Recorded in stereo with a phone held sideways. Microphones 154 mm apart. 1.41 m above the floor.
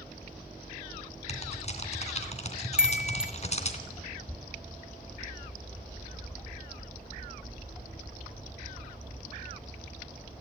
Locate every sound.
1.3 s typing on a keyboard: 45° left (ahead or behind), 2.5 m
2.8 s a chime: 5° right (ahead or behind), 1.2 m